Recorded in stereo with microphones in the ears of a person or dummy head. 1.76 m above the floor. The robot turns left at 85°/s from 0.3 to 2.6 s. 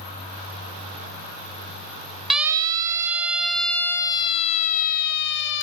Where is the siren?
Centre (ahead or behind), 2 m; by 5.6 s 70° left (ahead or behind), 1.7 m.